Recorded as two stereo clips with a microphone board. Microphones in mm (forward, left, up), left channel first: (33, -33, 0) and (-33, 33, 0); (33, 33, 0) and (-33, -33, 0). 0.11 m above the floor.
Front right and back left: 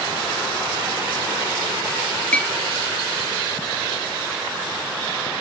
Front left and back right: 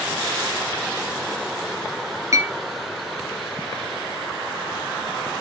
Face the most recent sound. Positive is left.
turn(degrees=-115)